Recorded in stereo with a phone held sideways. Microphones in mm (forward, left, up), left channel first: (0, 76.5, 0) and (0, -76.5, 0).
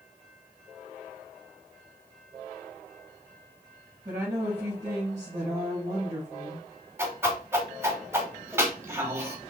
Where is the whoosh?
15° right (ahead or behind), 1.0 m.